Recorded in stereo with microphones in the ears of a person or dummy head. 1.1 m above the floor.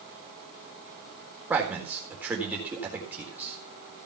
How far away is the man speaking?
About 4 m.